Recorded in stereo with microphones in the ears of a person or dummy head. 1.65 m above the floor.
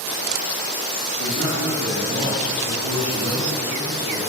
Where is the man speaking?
85° right, 4.5 m.